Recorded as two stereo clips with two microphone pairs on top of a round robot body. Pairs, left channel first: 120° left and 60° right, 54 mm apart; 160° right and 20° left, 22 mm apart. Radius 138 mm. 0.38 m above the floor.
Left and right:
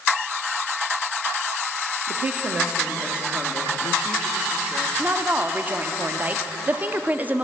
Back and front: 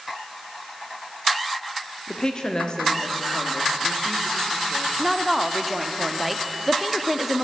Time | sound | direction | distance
2.1 | a woman speaking | 135° right | 1.4 m
5.0 | a woman speaking | 10° right | 0.9 m